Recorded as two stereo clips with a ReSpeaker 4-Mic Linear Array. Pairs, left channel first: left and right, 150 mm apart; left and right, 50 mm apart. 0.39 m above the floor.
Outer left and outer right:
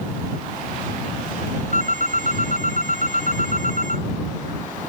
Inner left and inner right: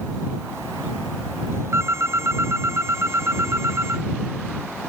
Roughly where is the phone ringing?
Right.